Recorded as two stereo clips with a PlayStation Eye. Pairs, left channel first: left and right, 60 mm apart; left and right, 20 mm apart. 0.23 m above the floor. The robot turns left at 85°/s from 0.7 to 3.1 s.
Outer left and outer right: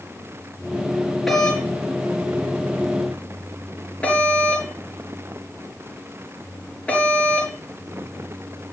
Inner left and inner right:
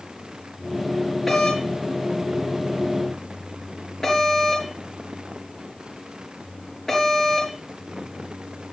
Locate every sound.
1.3 s a doorbell: 5° left (ahead or behind), 5 m; by 7.5 s 20° left (ahead or behind), 5 m